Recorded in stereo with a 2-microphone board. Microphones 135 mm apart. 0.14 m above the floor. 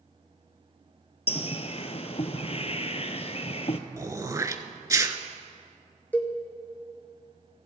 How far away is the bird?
About 0.6 m.